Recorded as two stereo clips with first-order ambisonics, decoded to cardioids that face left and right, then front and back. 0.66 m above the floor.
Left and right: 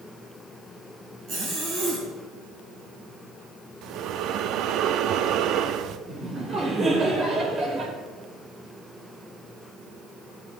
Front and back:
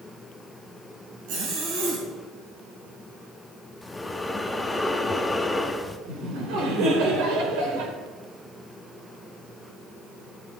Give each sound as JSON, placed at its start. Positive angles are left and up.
{"t": 1.3, "sound": "a zipper", "azimuth_deg": -165, "distance_m": 4.5}
{"t": 3.8, "sound": "breathing", "azimuth_deg": -80, "distance_m": 0.6}
{"t": 6.1, "sound": "laughter", "azimuth_deg": -160, "distance_m": 2.5}